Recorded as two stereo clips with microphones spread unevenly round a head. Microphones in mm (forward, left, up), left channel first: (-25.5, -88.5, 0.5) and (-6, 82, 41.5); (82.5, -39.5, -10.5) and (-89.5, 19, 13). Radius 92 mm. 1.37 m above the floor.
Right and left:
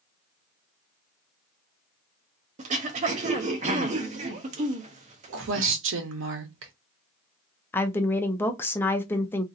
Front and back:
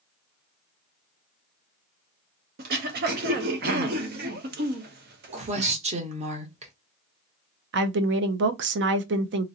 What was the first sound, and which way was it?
Throat clearing, 125° left.